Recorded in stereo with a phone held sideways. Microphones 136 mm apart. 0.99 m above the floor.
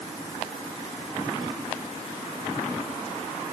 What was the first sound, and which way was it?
Only background noise.